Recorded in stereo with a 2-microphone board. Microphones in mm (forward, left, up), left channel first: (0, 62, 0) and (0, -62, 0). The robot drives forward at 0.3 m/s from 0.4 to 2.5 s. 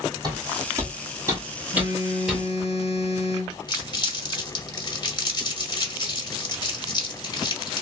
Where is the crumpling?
35° left (ahead or behind), 0.9 m.